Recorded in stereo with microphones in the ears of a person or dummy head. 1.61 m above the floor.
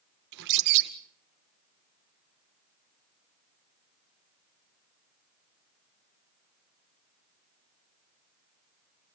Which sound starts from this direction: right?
A bird, at 0.3 s.